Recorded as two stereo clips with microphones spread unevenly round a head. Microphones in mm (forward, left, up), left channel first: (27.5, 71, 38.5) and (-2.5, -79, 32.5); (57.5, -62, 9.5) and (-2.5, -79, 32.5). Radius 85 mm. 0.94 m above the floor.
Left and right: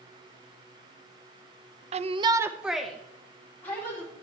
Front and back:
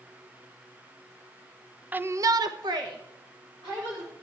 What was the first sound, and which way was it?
A shout, 85° right.